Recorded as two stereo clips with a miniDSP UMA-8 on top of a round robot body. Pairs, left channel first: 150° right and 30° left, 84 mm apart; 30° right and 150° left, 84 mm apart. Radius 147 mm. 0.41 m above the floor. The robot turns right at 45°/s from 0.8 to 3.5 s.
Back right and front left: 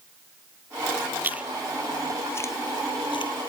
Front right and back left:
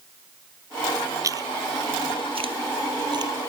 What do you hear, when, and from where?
1.2 s chewing: 100° left; by 3.3 s 170° right